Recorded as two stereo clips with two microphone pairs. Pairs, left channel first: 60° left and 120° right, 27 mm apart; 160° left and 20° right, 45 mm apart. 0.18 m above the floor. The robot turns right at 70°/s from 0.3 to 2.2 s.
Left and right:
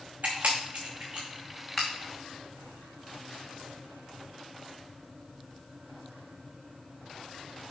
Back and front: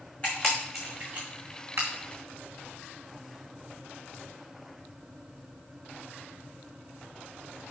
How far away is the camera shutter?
About 3 m.